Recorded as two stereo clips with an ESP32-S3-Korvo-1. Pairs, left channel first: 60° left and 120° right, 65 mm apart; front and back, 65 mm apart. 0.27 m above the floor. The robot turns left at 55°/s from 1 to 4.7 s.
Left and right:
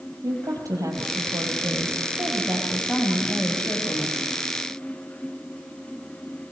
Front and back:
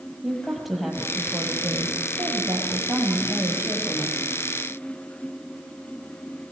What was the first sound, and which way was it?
A woman speaking, 90° right.